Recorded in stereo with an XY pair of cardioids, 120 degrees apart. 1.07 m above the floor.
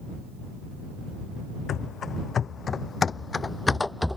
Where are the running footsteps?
50° left; by 4.2 s 5° left.